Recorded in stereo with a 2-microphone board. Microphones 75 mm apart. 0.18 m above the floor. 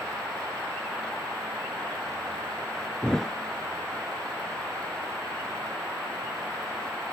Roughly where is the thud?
Centre.